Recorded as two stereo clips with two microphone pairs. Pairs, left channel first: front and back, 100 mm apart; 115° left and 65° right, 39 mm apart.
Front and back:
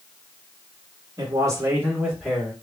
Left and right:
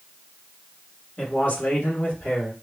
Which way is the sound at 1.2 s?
160° left.